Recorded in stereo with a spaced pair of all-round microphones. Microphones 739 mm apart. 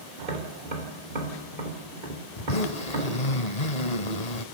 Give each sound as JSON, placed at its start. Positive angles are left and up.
{"t": 0.2, "sound": "tapping", "side_deg": -85, "distance_m": 4.0}
{"t": 2.4, "sound": "a zipper", "side_deg": 55, "distance_m": 1.5}